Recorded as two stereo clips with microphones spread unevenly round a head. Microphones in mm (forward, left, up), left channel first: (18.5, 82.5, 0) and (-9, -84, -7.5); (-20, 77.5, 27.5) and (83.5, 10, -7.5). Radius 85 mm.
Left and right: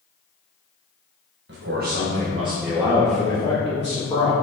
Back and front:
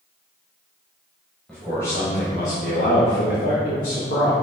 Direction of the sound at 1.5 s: 125° right.